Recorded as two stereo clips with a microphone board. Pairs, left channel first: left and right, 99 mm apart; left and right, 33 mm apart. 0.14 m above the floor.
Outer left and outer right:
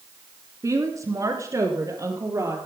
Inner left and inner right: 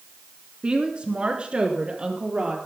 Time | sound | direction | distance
0.6 | a woman speaking | 35° right (ahead or behind) | 1.3 m